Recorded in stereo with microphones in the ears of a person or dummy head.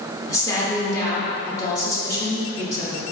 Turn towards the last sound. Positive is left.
turn(degrees=20)  # may be behind; listen again after turning